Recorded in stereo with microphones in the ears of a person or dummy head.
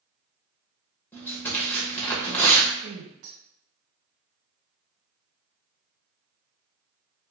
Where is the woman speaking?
70° right (ahead or behind), 1.0 m.